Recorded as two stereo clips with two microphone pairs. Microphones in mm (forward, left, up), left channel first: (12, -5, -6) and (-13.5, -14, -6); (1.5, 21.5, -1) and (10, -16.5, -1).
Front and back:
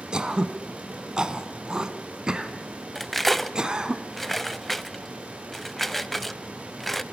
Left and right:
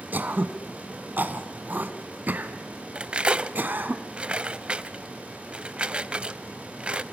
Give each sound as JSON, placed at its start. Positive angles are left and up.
{"t": 0.1, "sound": "throat clearing", "azimuth_deg": -105, "distance_m": 1.3}
{"t": 3.0, "sound": "cutlery clinking", "azimuth_deg": -65, "distance_m": 0.6}